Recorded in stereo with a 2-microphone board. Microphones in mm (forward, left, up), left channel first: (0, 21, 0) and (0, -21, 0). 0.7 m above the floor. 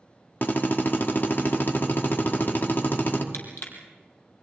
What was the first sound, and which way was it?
A drill, 55° left (ahead or behind).